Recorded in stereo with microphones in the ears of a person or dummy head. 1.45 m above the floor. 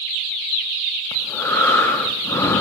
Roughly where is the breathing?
Left.